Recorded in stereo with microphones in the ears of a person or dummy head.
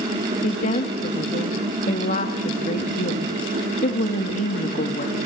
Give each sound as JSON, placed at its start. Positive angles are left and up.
{"t": 0.4, "sound": "a woman speaking", "side_deg": 45, "distance_m": 2.0}